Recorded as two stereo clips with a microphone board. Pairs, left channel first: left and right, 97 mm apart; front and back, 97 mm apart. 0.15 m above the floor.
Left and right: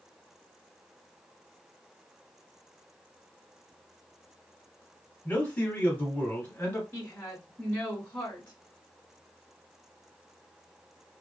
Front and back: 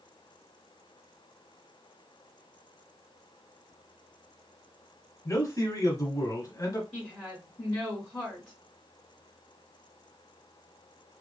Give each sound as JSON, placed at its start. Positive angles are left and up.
{"t": 5.2, "sound": "a man speaking", "azimuth_deg": 25, "distance_m": 1.2}
{"t": 6.9, "sound": "a woman speaking", "azimuth_deg": 95, "distance_m": 1.3}